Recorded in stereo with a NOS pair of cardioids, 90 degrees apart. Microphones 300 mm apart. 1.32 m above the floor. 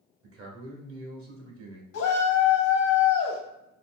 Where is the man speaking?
45° right, 1.3 m.